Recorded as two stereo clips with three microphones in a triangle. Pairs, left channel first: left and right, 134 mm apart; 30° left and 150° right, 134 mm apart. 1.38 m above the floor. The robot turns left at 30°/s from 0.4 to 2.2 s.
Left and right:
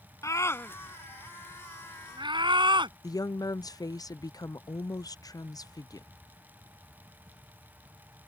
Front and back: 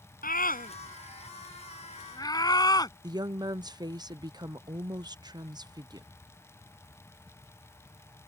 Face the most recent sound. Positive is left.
turn(degrees=155)